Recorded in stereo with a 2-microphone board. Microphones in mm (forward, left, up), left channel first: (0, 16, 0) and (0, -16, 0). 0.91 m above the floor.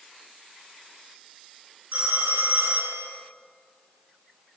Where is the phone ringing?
50° right (ahead or behind), 6 m.